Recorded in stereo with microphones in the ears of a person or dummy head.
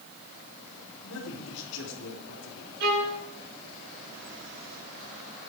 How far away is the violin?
About 6 m.